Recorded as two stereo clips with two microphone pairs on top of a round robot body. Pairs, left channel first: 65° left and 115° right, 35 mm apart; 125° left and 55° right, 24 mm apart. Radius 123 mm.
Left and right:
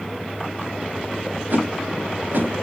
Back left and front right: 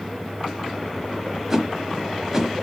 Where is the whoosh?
115° right, 1.4 m.